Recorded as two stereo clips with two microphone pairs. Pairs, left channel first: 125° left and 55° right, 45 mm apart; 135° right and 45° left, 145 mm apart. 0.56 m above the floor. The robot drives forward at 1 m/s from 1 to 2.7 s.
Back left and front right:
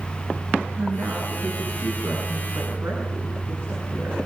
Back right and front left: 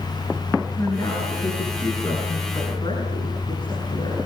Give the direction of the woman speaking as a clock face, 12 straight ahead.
2 o'clock.